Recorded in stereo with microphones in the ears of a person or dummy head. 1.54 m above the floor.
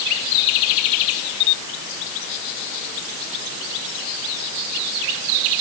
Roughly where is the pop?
I don't hear a pop.